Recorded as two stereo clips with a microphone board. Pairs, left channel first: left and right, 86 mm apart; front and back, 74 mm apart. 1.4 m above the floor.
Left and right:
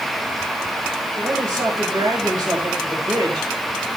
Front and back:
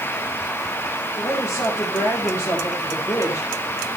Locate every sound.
1.2 s a woman speaking: 35° right, 5 m